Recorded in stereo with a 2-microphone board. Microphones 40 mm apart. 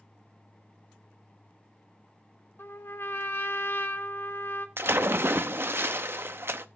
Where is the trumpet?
75° left (ahead or behind), 1.1 m.